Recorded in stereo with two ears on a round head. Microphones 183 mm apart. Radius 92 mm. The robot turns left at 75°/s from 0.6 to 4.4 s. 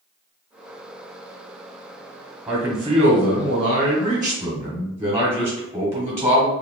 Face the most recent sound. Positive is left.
turn(degrees=-160)